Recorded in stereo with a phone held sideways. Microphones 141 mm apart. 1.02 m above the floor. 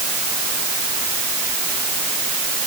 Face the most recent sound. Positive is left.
No sound to turn to.